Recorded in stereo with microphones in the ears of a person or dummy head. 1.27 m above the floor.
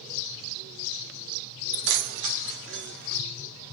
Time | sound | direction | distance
1.7 | keys jangling | 65° right (ahead or behind) | 1.2 m